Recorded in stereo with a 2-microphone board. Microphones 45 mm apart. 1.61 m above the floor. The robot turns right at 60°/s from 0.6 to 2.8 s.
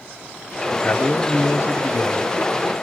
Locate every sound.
0.7 s a man speaking: 25° left, 0.8 m; by 2.7 s 150° left, 0.8 m